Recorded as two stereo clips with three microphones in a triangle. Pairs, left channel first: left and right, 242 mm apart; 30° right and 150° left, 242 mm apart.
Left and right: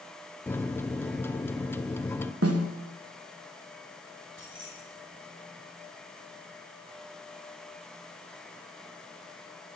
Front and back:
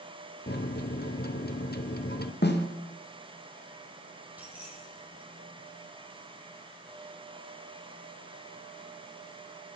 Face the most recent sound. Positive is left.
turn(degrees=-125)